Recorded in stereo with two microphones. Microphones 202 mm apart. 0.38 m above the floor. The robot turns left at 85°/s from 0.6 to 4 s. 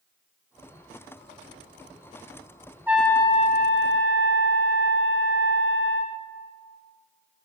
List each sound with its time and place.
2.9 s a trumpet: 170° right, 1.7 m; by 6.2 s 95° left, 1.7 m